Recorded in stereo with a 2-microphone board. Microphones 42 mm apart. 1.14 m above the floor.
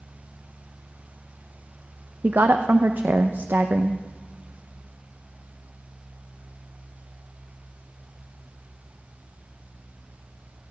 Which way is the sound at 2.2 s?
50° right (ahead or behind).